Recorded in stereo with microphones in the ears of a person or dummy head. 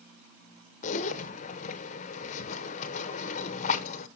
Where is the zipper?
50° left (ahead or behind), 0.8 m.